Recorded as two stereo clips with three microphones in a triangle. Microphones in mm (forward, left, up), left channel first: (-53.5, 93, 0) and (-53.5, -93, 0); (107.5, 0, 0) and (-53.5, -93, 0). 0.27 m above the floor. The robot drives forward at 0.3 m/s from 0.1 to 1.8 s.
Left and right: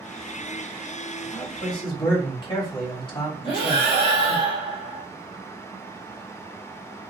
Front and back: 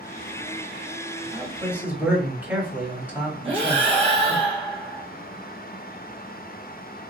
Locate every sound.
1.3 s a man speaking: 125° left, 1.0 m; by 4.4 s 135° left, 1.1 m
3.4 s breathing: 150° left, 1.5 m